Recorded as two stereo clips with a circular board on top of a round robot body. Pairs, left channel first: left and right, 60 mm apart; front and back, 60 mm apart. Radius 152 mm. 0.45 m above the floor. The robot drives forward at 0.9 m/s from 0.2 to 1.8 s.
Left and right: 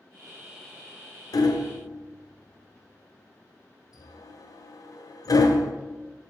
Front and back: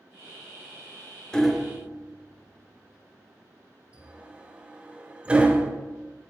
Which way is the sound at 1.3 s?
80° left.